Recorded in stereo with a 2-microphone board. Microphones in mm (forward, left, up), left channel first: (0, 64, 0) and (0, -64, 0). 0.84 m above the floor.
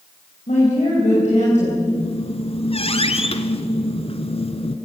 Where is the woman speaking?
65° left (ahead or behind), 4.5 m.